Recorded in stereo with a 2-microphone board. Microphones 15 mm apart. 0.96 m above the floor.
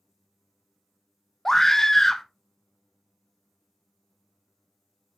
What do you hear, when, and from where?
1.4 s a scream: 25° left (ahead or behind), 0.7 m